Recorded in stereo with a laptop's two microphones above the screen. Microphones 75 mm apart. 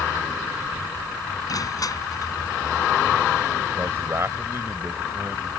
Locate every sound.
1.5 s crushing: 55° left (ahead or behind)
3.8 s a man speaking: 35° right (ahead or behind)